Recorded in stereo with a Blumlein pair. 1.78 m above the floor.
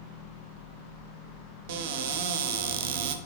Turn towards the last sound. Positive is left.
turn(degrees=-50)